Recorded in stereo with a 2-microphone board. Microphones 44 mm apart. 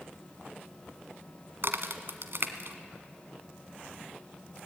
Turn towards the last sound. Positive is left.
turn(degrees=-60)  # may be behind; listen again after turning